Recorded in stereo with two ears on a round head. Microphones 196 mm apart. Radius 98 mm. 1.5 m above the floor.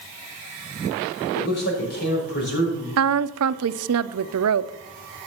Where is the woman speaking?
75° right (ahead or behind), 0.5 m.